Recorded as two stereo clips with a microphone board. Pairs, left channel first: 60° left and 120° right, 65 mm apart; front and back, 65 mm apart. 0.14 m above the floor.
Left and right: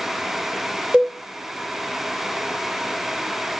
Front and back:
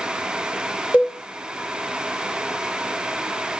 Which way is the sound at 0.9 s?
55° right.